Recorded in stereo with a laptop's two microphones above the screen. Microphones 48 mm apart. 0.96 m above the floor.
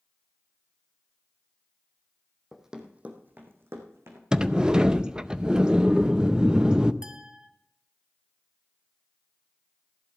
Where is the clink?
20° right (ahead or behind), 1.2 m.